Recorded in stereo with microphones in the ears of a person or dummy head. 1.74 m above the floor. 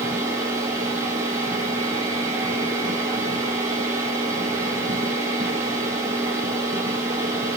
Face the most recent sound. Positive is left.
turn(degrees=-15)  # may be behind; listen again after turning